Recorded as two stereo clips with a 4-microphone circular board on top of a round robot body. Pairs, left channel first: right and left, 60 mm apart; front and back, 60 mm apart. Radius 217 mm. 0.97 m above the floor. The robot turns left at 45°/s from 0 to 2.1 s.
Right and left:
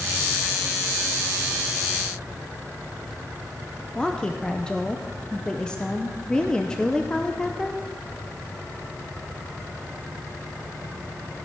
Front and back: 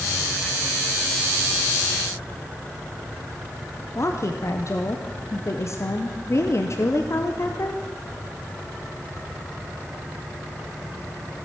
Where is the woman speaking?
15° right, 1.1 m.